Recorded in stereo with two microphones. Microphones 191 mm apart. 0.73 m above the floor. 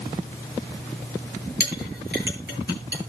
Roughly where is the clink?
Right.